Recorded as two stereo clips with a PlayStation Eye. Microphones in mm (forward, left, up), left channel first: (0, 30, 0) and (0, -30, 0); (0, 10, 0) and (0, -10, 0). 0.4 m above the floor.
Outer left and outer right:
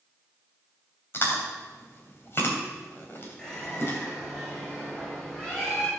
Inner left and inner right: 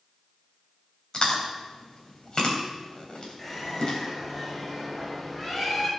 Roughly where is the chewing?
Left.